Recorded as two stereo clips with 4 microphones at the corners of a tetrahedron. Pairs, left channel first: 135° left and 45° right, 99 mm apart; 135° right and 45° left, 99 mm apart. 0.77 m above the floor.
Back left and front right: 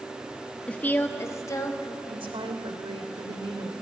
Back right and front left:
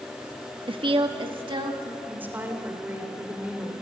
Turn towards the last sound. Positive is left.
turn(degrees=-25)